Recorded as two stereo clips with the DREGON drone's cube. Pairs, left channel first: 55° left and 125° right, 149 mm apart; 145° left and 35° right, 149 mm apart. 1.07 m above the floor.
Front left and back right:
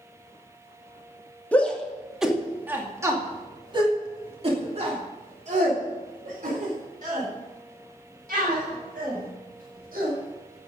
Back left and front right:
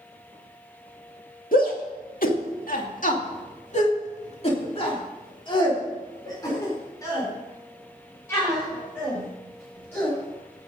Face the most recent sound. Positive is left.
turn(degrees=-135)